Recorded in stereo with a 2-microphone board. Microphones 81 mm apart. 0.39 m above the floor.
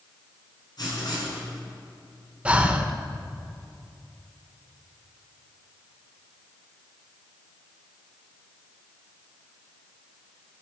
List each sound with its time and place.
0.8 s writing: 55° left (ahead or behind), 5 m
2.5 s breathing: 15° right (ahead or behind), 0.8 m